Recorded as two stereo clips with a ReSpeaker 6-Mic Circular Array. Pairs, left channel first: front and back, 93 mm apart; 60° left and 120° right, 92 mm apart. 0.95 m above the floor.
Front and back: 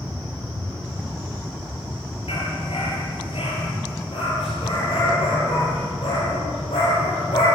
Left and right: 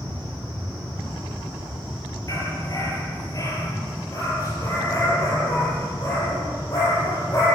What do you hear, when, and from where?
2.3 s a dog barking: 10° left, 5.5 m